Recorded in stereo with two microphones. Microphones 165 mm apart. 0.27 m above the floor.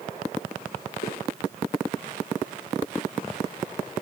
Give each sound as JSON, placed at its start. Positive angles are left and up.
{"t": 1.0, "sound": "footsteps", "side_deg": 85, "distance_m": 2.0}